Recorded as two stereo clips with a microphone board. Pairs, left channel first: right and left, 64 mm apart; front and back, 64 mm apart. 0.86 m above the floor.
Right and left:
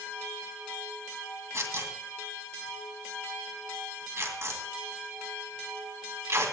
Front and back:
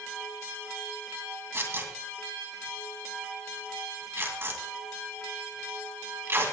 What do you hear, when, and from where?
1.5 s tearing paper: 130° left, 2 m